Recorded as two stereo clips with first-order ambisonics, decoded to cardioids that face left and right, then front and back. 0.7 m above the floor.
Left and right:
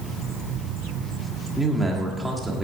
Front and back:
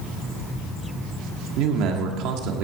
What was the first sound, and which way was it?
A man speaking, 175° right.